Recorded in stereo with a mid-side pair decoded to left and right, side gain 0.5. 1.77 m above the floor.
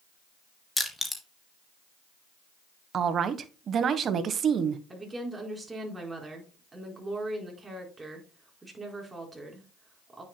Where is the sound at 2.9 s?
50° right, 1.4 m.